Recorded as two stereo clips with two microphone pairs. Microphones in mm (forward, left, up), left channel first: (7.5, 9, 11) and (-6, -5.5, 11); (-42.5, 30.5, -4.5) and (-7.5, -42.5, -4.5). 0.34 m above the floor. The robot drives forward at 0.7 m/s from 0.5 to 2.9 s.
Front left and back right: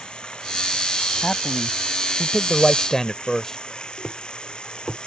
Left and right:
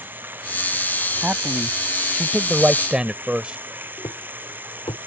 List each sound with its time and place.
0.0 s running water: 5° left
1.2 s a man speaking: straight ahead
4.0 s a thud: 125° left